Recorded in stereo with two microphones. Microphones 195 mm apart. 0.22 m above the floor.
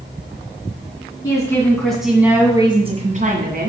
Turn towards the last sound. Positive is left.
turn(degrees=-50)  # may be behind; listen again after turning